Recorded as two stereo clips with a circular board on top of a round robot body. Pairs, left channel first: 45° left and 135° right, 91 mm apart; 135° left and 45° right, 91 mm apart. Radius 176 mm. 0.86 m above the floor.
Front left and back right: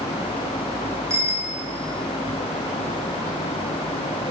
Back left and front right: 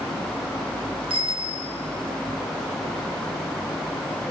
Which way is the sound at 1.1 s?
75° right.